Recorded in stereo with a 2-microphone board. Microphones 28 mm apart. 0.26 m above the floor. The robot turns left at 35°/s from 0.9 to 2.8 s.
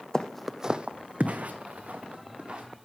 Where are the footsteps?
25° left (ahead or behind), 0.6 m; by 2.6 s 30° right (ahead or behind), 2.0 m.